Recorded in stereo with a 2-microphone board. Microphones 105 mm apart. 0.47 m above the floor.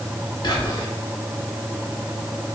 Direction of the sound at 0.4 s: 40° left (ahead or behind).